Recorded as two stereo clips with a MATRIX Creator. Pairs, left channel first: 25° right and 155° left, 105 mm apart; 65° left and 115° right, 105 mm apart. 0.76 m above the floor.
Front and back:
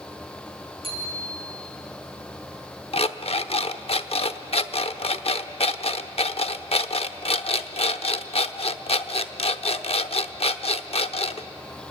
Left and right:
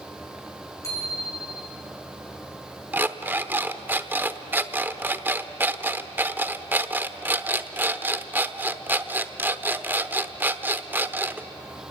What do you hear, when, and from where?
0.8 s a bicycle bell: 130° left, 6.5 m
2.9 s an alarm clock: 40° right, 0.8 m